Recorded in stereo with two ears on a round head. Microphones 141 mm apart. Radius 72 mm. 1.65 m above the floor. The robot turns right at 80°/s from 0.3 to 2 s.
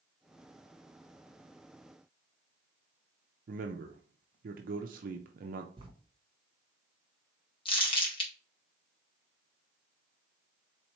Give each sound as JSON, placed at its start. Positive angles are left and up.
{"t": 3.5, "sound": "a man speaking", "side_deg": -60, "distance_m": 0.5}
{"t": 5.8, "sound": "writing", "side_deg": -35, "distance_m": 1.0}
{"t": 7.7, "sound": "crumpling", "side_deg": 35, "distance_m": 1.6}